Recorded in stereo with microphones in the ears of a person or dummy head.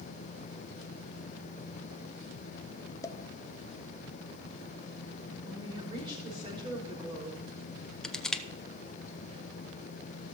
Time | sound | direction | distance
3.0 | a pop | 15° left (ahead or behind) | 0.6 m
5.4 | a woman speaking | 25° right (ahead or behind) | 4 m
8.0 | crushing | centre (ahead or behind) | 0.9 m